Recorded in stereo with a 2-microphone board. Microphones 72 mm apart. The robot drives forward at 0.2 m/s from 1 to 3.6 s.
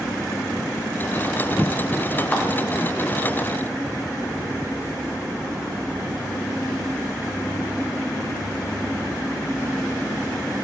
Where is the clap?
20° left (ahead or behind), 1.9 m.